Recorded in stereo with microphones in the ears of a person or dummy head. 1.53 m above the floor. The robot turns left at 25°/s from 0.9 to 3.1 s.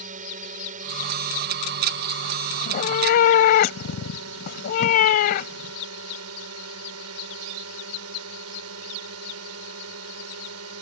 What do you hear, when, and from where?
0.0 s a drone: 45° right; by 10.8 s 100° right
2.6 s a cat meowing: 45° left (ahead or behind); by 5.7 s 55° left (ahead or behind)